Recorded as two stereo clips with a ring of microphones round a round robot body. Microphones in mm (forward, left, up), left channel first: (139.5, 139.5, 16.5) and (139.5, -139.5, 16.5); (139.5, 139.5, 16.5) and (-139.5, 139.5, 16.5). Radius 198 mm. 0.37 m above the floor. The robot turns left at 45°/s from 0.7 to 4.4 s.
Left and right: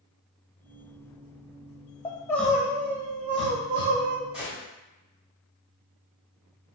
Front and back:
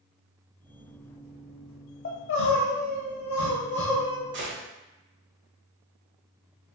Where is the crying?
20° left, 1.0 m; by 4.2 s 80° right, 1.0 m.